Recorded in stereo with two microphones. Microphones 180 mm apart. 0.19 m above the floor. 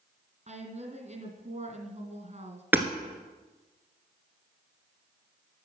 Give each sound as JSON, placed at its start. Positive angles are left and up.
{"t": 0.5, "sound": "a woman speaking", "side_deg": -45, "distance_m": 2.0}
{"t": 2.7, "sound": "hammering", "side_deg": -10, "distance_m": 1.2}